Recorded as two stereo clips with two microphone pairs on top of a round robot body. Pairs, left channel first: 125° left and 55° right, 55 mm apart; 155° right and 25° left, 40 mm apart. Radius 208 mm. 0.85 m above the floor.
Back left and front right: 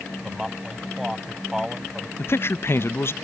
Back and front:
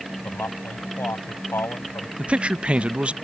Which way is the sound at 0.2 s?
135° right.